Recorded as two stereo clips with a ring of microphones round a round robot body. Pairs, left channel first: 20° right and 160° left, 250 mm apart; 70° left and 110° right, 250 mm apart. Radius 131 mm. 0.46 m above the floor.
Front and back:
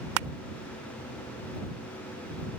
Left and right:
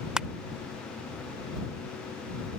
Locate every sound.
0.2 s crushing: 160° left